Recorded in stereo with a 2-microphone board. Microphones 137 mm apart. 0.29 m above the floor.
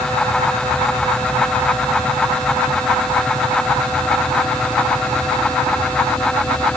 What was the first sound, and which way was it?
Only background noise.